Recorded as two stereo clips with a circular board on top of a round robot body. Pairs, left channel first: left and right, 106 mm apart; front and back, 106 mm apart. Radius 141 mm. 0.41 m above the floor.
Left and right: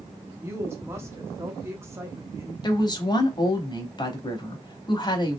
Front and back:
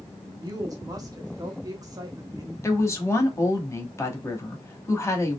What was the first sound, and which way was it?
A woman speaking, 145° right.